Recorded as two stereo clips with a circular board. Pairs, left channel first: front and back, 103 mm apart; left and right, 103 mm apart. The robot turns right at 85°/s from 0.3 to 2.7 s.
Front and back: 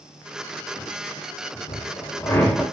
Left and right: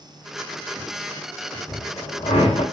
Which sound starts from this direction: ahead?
A drill, at 1.7 s.